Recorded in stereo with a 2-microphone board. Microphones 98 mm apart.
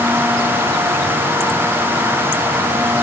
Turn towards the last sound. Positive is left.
No sound to turn to.